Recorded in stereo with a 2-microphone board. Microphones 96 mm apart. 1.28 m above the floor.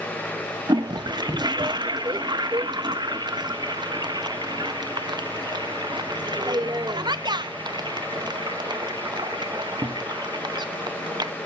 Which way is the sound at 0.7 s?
50° right (ahead or behind).